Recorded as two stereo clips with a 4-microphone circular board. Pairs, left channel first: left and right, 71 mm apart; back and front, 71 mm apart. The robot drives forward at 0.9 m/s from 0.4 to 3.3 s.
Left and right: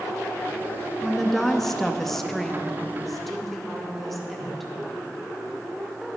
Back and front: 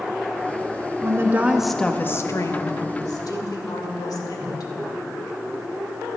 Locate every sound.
1.0 s a woman speaking: 5° left, 0.8 m; by 4.7 s straight behind, 1.6 m